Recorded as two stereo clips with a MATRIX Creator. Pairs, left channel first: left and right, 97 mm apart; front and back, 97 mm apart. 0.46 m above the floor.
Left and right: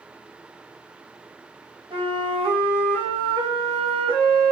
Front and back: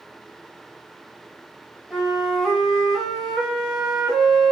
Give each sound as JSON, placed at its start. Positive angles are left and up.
{"t": 1.9, "sound": "a flute", "azimuth_deg": -95, "distance_m": 1.6}